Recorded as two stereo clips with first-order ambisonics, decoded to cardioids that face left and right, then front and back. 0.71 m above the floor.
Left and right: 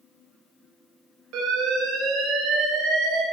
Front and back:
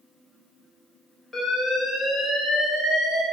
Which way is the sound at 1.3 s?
85° right.